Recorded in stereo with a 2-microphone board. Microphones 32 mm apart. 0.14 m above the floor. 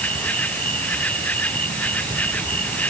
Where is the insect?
50° left (ahead or behind).